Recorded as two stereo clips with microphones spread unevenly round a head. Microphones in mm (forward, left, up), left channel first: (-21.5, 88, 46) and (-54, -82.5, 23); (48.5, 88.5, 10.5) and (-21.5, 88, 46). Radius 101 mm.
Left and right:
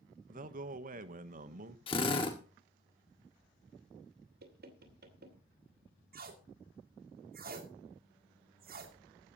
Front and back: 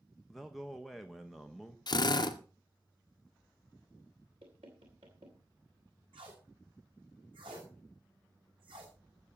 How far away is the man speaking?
About 1.0 m.